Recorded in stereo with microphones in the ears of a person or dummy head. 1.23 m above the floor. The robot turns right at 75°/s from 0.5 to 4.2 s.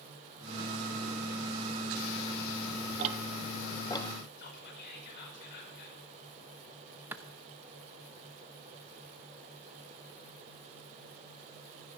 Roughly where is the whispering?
Left.